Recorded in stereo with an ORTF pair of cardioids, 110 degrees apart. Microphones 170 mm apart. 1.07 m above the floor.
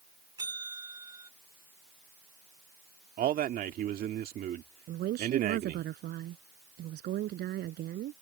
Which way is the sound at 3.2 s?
55° right.